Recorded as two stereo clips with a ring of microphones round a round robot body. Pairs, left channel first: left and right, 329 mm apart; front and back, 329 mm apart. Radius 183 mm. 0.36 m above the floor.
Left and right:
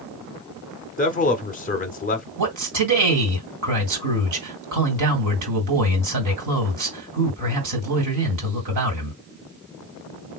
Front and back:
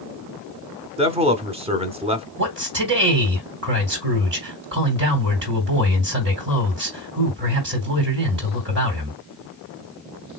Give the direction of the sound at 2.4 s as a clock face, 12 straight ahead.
4 o'clock.